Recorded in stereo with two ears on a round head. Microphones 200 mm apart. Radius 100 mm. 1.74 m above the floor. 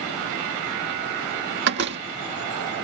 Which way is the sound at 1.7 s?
50° right (ahead or behind).